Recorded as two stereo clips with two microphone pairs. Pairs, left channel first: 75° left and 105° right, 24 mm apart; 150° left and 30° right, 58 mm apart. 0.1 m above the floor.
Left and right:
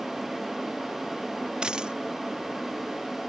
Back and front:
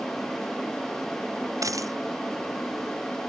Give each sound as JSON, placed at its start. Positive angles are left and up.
{"t": 1.6, "sound": "a dropped coin", "azimuth_deg": -50}